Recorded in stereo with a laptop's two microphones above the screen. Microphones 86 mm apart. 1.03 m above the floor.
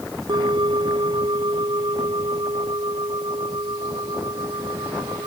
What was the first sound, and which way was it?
A bell, 60° right (ahead or behind).